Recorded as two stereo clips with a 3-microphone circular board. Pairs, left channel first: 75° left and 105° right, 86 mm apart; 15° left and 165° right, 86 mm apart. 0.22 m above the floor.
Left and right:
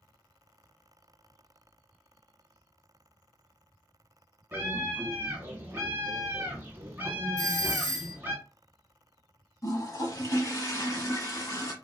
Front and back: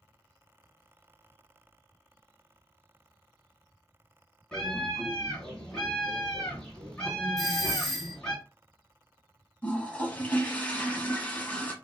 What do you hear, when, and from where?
4.5 s a scream: 55° right, 1.5 m
7.4 s a doorbell: 95° left, 1.4 m
9.6 s a toilet flushing: 75° left, 0.9 m